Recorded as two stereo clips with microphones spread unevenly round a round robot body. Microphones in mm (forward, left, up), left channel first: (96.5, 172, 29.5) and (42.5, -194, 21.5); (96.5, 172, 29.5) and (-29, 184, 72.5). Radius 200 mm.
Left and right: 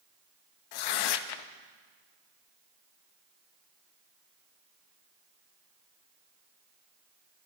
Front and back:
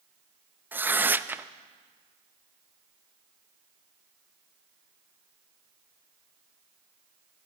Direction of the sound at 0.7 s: 85° left.